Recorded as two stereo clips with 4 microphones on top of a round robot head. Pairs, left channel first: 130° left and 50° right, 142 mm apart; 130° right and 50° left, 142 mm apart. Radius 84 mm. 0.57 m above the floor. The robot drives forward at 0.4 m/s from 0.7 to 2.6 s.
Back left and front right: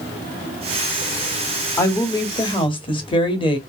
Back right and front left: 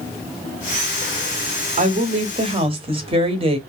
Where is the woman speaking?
60° left, 1.0 m; by 3.6 s 85° left, 0.9 m.